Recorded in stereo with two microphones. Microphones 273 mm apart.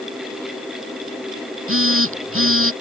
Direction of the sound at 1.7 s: 50° right (ahead or behind).